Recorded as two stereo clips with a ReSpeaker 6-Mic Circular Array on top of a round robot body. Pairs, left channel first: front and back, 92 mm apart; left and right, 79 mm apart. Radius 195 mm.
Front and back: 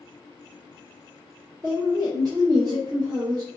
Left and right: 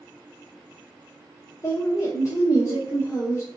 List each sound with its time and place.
1.6 s a woman speaking: 140° left, 0.9 m